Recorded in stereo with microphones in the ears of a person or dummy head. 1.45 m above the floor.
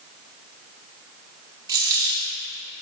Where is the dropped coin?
20° right (ahead or behind), 2 m.